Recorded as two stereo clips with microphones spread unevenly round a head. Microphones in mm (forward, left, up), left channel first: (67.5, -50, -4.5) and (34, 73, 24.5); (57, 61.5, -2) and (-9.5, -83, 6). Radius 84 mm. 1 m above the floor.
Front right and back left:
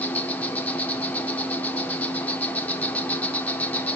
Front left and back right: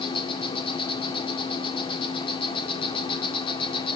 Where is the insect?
5° left, 2 m.